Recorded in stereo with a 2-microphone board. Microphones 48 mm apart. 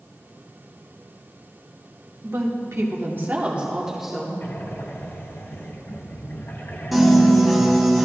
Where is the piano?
5° right (ahead or behind), 1.4 m.